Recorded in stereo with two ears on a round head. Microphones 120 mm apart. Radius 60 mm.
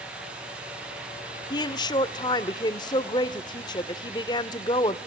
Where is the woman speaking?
30° left (ahead or behind), 0.8 m.